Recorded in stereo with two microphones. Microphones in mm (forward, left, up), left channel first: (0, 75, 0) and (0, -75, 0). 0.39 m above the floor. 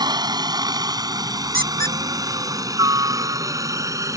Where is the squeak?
75° right (ahead or behind).